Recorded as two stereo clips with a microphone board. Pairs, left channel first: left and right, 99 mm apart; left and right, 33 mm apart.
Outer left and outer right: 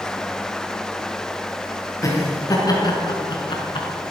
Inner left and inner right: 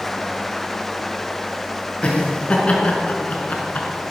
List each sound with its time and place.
2.0 s laughter: 35° left (ahead or behind), 5 m; by 3.9 s 55° left (ahead or behind), 4.5 m